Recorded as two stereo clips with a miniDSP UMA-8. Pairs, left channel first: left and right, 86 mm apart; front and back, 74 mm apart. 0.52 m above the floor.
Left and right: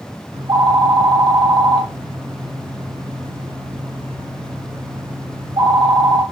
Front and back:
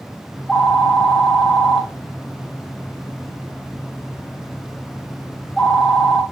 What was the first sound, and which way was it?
A phone ringing, 85° right.